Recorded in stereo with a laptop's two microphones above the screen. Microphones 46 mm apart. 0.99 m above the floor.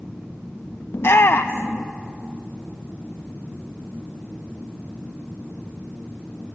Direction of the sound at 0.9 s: 60° left (ahead or behind).